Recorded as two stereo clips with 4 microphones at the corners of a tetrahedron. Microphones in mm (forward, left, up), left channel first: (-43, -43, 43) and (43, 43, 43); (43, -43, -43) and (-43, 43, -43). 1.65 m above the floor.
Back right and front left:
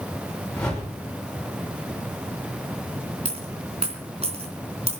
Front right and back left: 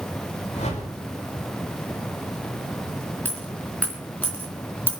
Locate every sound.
0.5 s a whoosh: 50° right, 6 m
3.2 s a dropped coin: 30° left, 3.5 m